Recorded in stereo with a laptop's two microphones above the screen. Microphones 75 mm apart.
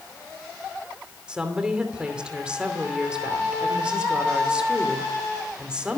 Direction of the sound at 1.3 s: 15° right (ahead or behind).